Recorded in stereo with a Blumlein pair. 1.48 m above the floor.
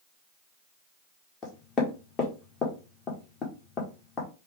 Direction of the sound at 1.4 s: 25° left.